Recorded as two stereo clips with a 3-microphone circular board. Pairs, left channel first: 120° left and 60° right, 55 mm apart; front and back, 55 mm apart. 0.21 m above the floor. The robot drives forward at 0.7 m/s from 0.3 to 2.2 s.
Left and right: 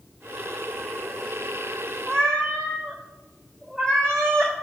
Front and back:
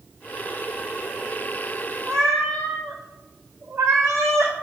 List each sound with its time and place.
2.1 s a cat meowing: 160° right, 0.8 m; by 4.5 s 165° right, 0.9 m